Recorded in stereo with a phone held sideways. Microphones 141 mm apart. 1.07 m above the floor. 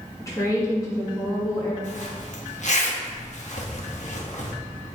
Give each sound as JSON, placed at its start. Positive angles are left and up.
{"t": 0.2, "sound": "a woman speaking", "side_deg": 20, "distance_m": 2.0}
{"t": 1.8, "sound": "a zipper", "side_deg": 60, "distance_m": 1.2}